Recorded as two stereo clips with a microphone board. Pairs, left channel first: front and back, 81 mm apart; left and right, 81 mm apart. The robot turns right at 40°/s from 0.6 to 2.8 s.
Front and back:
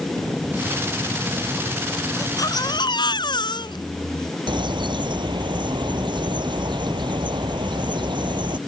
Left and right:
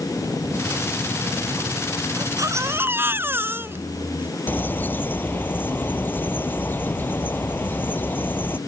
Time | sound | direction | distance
2.2 | a baby crying | 50° right | ?
4.5 | a bird | 160° left | ?